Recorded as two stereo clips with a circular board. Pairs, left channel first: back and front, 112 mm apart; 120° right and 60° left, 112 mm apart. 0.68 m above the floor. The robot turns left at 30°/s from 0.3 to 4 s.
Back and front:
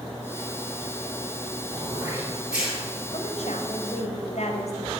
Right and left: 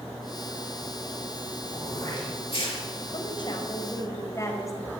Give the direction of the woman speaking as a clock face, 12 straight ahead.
5 o'clock.